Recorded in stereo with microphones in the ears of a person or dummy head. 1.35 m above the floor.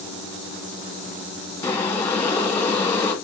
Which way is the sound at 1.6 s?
10° left (ahead or behind).